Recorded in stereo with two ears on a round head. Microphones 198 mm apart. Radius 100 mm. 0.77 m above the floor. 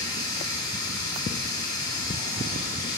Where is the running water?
15° left (ahead or behind), 2.5 m.